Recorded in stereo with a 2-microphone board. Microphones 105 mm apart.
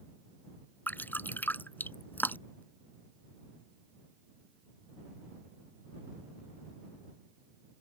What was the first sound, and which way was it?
Dripping, 15° left (ahead or behind).